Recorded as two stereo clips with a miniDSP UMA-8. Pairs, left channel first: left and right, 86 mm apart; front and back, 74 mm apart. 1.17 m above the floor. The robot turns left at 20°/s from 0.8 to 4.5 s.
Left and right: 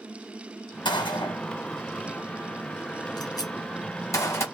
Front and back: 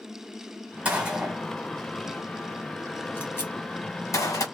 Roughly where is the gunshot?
Left.